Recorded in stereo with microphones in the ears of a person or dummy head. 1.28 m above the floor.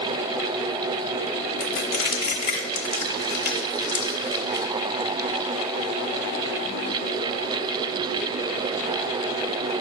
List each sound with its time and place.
1.6 s crushing: 50° left (ahead or behind), 1.1 m